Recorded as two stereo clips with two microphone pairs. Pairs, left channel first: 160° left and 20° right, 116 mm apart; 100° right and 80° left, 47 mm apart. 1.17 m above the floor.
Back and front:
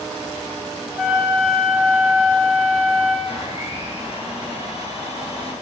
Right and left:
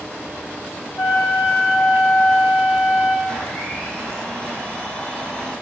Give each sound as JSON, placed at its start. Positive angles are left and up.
{"t": 1.0, "sound": "a flute", "azimuth_deg": -105, "distance_m": 4.0}
{"t": 3.3, "sound": "a blender", "azimuth_deg": -175, "distance_m": 5.5}